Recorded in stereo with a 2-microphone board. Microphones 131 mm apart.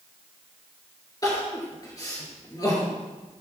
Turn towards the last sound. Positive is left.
turn(degrees=30)  # may be behind; listen again after turning